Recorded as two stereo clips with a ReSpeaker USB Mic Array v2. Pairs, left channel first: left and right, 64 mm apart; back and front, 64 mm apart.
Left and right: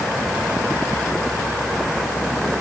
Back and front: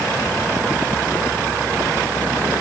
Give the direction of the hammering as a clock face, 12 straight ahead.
I don't hear hammering.